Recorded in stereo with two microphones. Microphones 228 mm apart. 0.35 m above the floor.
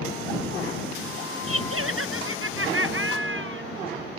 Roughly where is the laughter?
Right.